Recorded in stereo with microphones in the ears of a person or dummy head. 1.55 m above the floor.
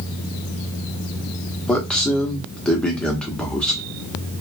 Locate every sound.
1.7 s a man speaking: 5° left (ahead or behind), 0.9 m